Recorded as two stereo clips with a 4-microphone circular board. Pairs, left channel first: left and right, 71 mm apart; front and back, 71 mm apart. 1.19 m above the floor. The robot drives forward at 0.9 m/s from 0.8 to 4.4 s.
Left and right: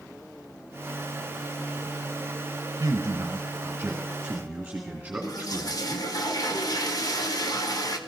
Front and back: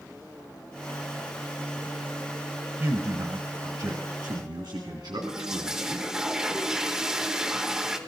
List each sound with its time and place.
2.8 s a man speaking: 125° right, 0.6 m; by 6.1 s 165° right, 1.9 m
5.2 s a toilet flushing: 100° left, 1.2 m